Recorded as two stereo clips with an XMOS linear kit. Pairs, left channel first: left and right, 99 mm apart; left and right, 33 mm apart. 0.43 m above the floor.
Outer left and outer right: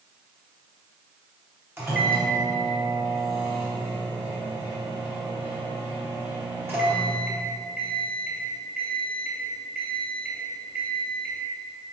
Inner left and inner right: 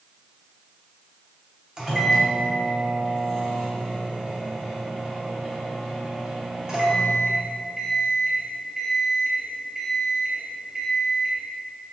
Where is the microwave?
25° right (ahead or behind), 2 m.